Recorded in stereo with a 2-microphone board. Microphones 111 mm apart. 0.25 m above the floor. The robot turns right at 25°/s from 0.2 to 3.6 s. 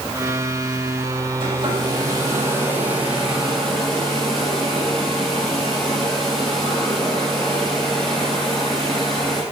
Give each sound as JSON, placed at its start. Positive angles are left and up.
{"t": 1.4, "sound": "a hair dryer", "azimuth_deg": -50, "distance_m": 6.5}